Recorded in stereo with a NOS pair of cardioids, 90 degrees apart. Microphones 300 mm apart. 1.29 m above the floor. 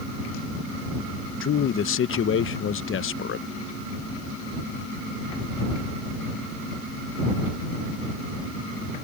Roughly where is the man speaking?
Ahead left.